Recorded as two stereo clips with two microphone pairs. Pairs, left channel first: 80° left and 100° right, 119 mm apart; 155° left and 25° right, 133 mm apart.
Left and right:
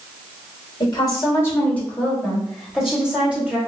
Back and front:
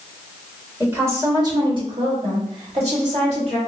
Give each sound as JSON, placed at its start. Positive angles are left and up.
{"t": 0.8, "sound": "a woman speaking", "azimuth_deg": 45, "distance_m": 1.4}